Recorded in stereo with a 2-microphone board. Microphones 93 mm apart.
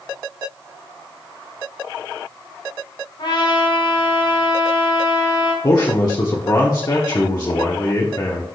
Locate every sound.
3.2 s a trumpet: 70° left (ahead or behind), 3 m
5.6 s a man speaking: 45° left (ahead or behind), 1.1 m